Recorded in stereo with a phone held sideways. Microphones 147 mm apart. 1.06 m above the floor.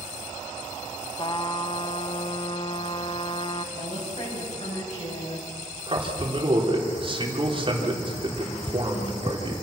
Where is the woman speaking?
50° left (ahead or behind), 8 m.